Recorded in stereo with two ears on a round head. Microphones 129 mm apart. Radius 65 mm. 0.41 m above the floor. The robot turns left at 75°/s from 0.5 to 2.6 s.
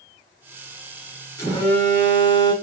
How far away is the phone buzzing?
About 1.6 m.